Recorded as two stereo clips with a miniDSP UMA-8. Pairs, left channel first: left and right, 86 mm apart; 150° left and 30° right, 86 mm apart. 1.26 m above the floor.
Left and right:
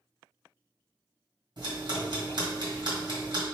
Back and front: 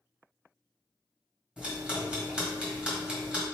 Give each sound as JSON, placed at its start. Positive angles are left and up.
{"t": 1.6, "sound": "ticking", "azimuth_deg": -110, "distance_m": 1.9}